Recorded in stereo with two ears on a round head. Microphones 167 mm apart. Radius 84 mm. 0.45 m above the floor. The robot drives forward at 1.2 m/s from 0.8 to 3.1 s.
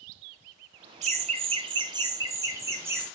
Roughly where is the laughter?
Right.